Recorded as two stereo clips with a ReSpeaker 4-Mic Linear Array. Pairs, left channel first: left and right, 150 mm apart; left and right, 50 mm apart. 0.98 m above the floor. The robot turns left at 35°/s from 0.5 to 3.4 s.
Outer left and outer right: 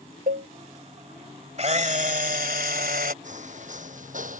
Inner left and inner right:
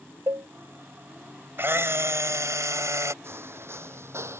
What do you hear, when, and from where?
0.3 s a cowbell: 60° right (ahead or behind)
1.6 s a camera shutter: 50° right; by 3.1 s 105° right
3.2 s footsteps: 60° right (ahead or behind); by 4.4 s 65° right (ahead or behind)